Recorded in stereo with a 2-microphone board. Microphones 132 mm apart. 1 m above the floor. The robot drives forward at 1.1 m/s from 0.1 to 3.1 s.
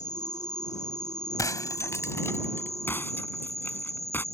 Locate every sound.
0.0 s an insect: 65° left (ahead or behind); by 4.3 s 55° left (ahead or behind)
1.4 s breaking glass: 25° left (ahead or behind); by 4.2 s 15° left (ahead or behind)